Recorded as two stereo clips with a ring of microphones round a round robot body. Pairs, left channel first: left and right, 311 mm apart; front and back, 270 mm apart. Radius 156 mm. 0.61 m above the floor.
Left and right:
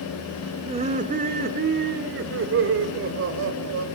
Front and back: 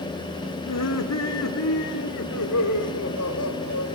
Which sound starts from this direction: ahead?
Laughter, at 0.7 s.